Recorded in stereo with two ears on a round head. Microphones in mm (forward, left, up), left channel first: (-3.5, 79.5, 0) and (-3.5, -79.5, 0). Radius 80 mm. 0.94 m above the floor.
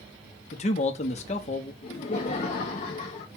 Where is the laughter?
35° left (ahead or behind), 0.6 m.